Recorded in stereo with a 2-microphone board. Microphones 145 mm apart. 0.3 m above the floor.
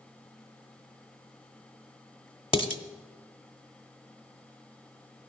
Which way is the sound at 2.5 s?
35° left (ahead or behind).